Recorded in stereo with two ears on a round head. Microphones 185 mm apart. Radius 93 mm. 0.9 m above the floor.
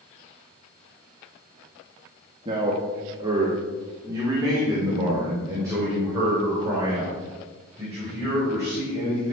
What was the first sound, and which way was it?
A man speaking, 25° right (ahead or behind).